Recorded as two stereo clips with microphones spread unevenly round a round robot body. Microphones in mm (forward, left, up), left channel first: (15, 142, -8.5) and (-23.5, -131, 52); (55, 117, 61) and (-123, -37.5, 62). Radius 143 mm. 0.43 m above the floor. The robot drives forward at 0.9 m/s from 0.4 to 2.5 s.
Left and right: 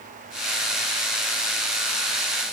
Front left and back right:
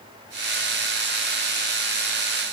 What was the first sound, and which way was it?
Only background noise.